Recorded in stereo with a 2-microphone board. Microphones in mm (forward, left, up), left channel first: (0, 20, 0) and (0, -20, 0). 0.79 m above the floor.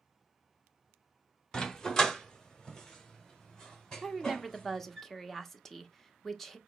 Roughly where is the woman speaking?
Centre.